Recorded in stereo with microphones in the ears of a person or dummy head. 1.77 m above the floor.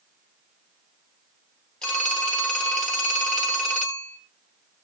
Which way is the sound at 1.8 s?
5° left (ahead or behind).